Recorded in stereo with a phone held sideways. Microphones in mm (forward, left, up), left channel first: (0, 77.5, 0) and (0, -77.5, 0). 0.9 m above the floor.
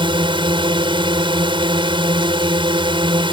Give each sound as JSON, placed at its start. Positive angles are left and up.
{"t": 0.0, "sound": "a drone", "side_deg": -35}